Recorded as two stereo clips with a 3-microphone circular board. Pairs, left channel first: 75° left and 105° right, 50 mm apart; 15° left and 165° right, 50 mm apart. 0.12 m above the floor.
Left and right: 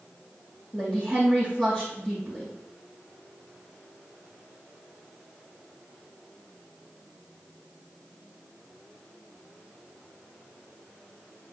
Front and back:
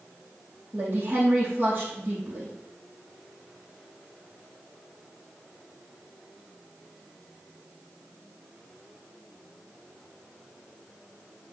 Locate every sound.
0.7 s a woman speaking: 150° left, 3.5 m